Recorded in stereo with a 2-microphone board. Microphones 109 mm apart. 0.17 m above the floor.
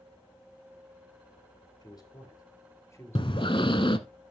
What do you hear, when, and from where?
1.8 s a man speaking: 35° left (ahead or behind), 4 m; by 3.7 s 20° left (ahead or behind), 3.5 m
3.1 s breathing: 55° left (ahead or behind), 0.9 m